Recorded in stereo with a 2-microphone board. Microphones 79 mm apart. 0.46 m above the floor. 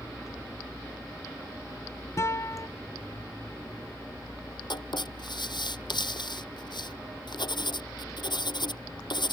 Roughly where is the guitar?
Left.